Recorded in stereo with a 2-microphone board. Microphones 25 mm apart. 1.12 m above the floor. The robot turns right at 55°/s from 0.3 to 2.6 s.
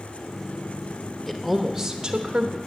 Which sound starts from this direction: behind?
A woman speaking, at 1.3 s.